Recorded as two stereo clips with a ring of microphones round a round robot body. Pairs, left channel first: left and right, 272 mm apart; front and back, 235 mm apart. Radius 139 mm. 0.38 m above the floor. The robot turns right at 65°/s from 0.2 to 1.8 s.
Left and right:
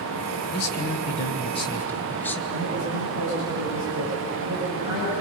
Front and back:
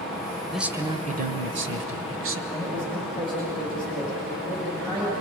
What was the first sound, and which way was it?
A man speaking, 90° left.